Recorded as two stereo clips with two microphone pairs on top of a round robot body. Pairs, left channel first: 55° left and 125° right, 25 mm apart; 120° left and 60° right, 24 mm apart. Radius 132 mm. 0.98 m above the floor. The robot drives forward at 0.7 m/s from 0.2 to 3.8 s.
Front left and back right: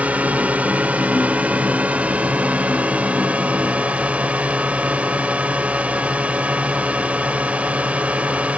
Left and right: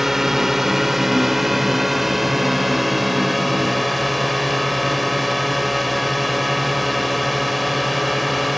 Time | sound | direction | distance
0.0 | a drone | 135° right | ?